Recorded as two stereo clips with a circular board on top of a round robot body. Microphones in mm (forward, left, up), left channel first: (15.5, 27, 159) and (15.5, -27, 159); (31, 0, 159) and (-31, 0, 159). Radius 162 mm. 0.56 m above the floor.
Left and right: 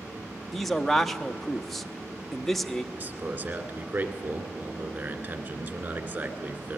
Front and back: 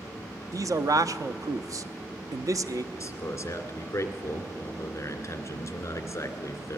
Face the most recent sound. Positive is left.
turn(degrees=-45)